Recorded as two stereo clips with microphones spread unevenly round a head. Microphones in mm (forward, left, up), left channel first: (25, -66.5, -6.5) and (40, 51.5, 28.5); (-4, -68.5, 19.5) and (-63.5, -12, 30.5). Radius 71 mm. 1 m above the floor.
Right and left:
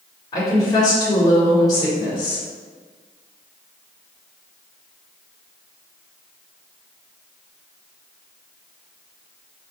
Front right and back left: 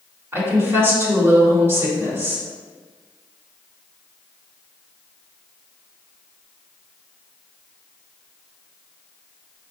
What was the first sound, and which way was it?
A woman speaking, 160° right.